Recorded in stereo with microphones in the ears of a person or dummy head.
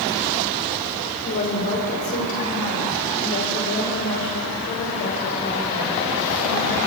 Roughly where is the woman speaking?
Left.